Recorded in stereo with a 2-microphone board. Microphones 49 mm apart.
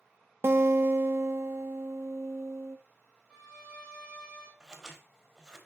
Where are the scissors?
10° right (ahead or behind), 1.3 m.